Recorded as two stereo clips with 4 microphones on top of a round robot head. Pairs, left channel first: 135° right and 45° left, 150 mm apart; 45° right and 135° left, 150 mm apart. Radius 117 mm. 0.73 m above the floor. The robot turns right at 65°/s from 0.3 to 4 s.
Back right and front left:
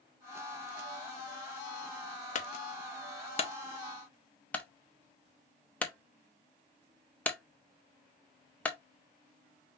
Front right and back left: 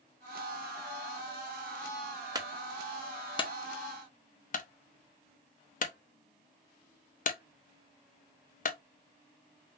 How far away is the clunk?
About 0.9 m.